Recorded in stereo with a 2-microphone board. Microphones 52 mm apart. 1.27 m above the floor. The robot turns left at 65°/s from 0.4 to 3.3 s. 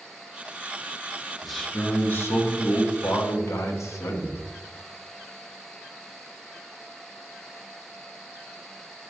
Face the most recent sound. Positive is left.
turn(degrees=65)